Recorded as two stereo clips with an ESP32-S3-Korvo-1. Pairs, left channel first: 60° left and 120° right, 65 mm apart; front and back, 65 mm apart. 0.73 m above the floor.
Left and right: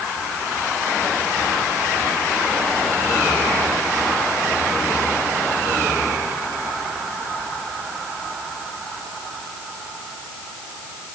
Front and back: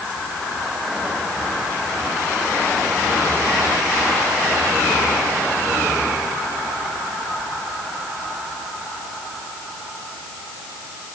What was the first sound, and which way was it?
Only background noise.